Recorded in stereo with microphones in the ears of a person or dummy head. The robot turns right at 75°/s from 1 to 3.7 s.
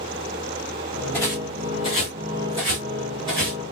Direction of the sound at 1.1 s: 5° left (ahead or behind).